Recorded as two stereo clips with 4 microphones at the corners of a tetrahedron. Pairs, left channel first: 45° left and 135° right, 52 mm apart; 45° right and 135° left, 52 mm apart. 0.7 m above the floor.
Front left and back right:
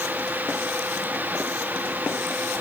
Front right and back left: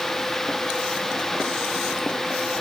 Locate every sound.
Only background noise.